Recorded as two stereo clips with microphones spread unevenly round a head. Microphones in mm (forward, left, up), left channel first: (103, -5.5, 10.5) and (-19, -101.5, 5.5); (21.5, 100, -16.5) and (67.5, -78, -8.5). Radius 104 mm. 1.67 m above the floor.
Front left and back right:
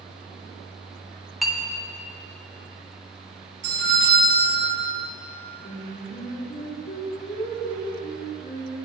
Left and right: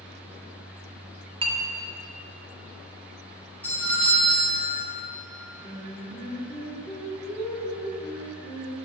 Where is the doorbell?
175° right, 2.5 m.